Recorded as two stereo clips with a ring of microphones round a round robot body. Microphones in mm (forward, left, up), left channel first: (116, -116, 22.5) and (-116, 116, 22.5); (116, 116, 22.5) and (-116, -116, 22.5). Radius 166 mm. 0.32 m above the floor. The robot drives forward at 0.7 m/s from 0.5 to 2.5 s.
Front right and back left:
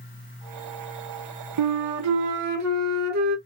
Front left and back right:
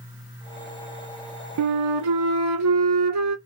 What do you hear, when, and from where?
1.6 s a flute: 175° left, 0.5 m; by 3.4 s straight behind, 1.2 m